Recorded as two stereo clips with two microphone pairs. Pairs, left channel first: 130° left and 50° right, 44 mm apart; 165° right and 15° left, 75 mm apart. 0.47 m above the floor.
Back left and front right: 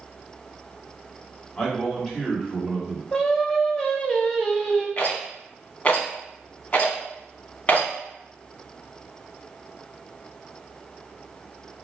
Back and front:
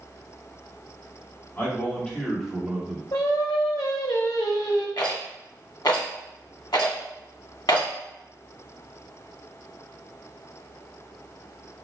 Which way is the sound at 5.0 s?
175° right.